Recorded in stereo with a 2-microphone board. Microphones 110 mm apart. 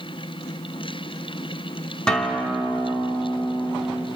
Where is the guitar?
10° left (ahead or behind), 2.5 m.